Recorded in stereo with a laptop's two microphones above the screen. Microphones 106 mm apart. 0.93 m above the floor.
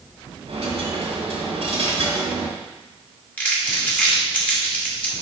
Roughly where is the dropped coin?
Right.